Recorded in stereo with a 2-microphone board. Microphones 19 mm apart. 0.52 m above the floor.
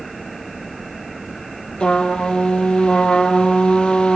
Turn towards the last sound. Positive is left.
turn(degrees=75)  # may be behind; listen again after turning